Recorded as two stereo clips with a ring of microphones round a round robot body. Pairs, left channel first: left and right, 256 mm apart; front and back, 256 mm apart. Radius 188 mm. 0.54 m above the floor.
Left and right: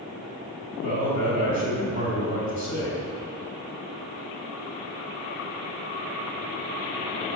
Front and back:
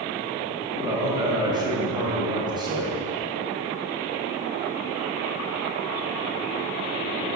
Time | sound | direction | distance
0.8 | a man speaking | 105° left | 3 m